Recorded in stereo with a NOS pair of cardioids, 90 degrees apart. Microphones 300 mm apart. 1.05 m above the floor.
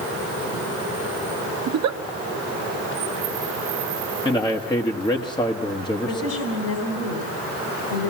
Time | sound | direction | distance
1.7 | a giggle | 65° right | 0.8 m
4.2 | a man speaking | 15° left | 1.3 m
6.0 | a woman speaking | 60° left | 3.5 m